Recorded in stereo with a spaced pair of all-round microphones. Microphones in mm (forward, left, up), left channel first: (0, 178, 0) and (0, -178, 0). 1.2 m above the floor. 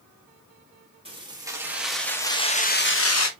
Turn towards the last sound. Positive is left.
turn(degrees=50)  # may be behind; listen again after turning